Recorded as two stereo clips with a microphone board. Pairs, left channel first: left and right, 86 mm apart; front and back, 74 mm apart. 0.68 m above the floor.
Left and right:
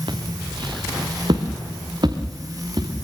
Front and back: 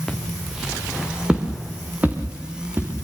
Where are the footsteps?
85° right, 4 m; by 2.9 s 120° right, 6 m.